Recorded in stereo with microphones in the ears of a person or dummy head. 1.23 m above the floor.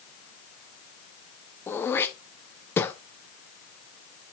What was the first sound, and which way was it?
Throat clearing, 15° left (ahead or behind).